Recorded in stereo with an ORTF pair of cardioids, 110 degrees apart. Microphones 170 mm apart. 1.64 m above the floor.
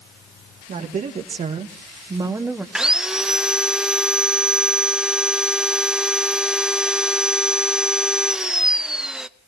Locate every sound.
0.7 s a woman speaking: 50° right, 2.5 m; by 2.6 s 5° right, 1.2 m
2.8 s sawing: 5° right, 0.6 m